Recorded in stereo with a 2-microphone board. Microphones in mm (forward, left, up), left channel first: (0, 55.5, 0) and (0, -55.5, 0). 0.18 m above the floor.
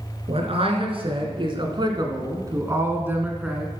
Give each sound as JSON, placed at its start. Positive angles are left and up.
{"t": 0.3, "sound": "a man speaking", "side_deg": -60, "distance_m": 2.5}